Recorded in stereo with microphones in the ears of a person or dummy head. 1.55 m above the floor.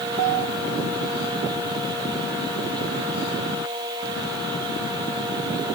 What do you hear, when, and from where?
Only background noise.